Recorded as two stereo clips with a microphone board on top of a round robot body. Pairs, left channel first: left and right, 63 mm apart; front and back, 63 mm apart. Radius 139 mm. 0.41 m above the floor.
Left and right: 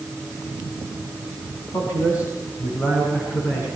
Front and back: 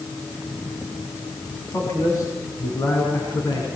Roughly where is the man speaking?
Ahead left.